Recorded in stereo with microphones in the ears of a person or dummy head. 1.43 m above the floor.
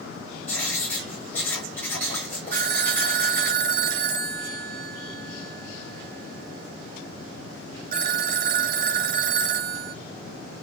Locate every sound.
0.5 s writing: 10° left (ahead or behind), 7 m
2.5 s a phone ringing: 55° right (ahead or behind), 1.0 m